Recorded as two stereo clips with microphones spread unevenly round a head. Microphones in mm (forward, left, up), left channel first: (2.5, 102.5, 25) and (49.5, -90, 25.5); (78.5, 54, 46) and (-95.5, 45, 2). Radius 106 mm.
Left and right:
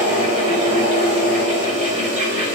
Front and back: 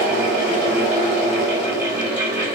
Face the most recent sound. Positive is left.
turn(degrees=-80)